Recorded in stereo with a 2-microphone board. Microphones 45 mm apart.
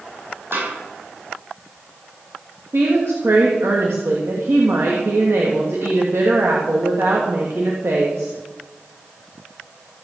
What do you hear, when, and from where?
0.5 s a snare drum: 65° right (ahead or behind), 7.5 m
2.7 s a woman speaking: 75° right (ahead or behind), 2.5 m